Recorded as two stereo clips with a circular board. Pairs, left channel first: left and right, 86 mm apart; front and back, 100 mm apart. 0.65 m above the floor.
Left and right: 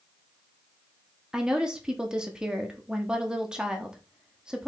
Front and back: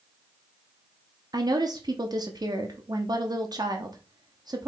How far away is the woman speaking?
About 0.8 m.